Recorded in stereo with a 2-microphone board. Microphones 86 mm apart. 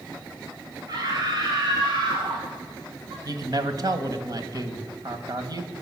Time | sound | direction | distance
0.9 | a scream | 45° right (ahead or behind) | 2.5 m
3.2 | a man speaking | 45° right (ahead or behind) | 1.6 m